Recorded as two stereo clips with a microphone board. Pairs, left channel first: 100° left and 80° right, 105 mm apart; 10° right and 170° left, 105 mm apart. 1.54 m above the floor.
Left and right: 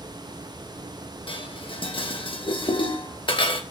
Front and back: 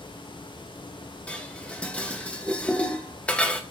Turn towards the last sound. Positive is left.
turn(degrees=70)